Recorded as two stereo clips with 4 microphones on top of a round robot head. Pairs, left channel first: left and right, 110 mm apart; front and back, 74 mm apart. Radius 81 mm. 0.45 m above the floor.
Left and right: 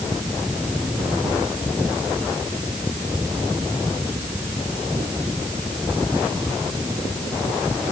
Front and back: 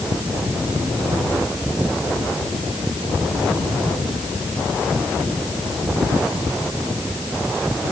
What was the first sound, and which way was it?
Only background noise.